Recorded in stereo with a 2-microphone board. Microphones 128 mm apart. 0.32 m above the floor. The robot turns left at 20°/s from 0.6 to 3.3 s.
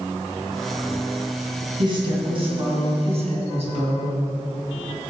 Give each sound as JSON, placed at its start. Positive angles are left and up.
{"t": 1.8, "sound": "a woman speaking", "azimuth_deg": -45, "distance_m": 3.0}